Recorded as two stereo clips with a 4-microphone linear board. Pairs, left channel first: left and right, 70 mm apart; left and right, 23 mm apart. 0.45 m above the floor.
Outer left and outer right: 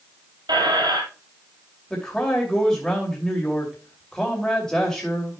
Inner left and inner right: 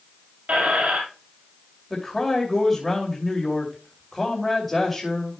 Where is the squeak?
80° right, 2.5 m.